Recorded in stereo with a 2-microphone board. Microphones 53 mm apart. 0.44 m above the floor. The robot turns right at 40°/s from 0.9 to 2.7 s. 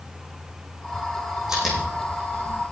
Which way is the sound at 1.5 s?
10° right (ahead or behind).